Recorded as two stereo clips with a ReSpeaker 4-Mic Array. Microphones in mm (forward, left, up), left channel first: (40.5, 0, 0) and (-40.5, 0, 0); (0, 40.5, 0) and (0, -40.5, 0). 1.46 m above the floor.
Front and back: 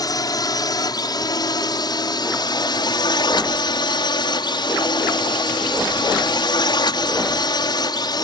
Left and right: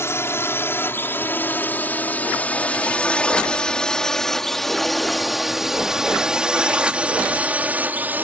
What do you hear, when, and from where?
0.0 s a drone: 35° left; by 8.2 s 25° right